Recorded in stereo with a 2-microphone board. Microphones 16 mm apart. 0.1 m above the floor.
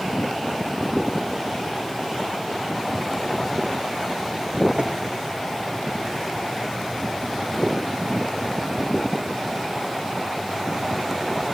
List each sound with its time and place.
4.8 s tapping: 75° right (ahead or behind), 6.5 m